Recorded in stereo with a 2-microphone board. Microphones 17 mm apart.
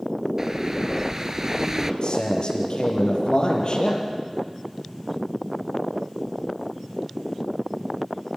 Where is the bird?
30° right (ahead or behind), 1.0 m.